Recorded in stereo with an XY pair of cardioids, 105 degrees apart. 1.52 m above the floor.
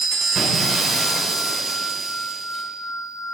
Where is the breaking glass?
60° right, 3.5 m.